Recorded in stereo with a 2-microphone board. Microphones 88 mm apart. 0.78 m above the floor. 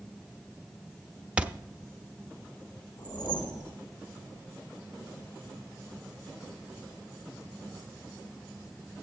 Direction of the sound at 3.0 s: 65° left (ahead or behind).